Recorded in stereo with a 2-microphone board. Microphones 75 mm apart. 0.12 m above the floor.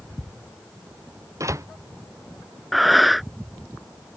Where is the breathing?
Centre (ahead or behind).